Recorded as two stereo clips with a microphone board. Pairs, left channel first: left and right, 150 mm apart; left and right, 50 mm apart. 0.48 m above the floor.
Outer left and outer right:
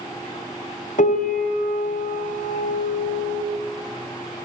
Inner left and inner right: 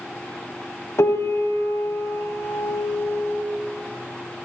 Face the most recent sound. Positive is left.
turn(degrees=70)  # may be behind; listen again after turning